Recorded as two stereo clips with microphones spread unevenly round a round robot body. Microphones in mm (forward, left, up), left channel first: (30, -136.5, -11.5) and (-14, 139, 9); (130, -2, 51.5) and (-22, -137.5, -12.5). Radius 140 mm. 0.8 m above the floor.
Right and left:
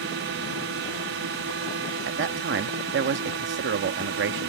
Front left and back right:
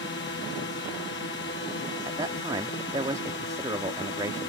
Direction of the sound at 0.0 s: 80° left.